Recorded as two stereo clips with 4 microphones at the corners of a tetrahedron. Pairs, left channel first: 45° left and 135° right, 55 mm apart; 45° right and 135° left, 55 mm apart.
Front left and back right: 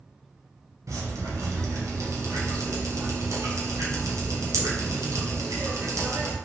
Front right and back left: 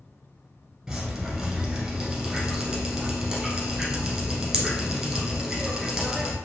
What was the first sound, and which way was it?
Dripping, 150° right.